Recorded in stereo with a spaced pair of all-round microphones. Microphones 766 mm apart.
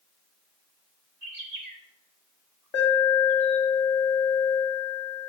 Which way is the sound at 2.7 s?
40° left (ahead or behind).